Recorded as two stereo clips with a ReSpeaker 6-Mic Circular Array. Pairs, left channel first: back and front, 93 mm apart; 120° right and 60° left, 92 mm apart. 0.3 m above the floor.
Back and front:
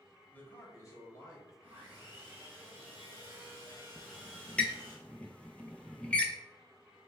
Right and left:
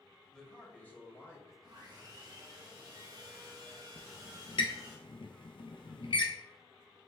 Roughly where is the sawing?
Ahead left.